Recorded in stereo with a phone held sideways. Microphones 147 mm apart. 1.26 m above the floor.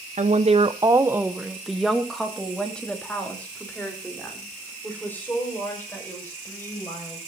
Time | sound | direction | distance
0.2 | a woman speaking | 55° right (ahead or behind) | 0.8 m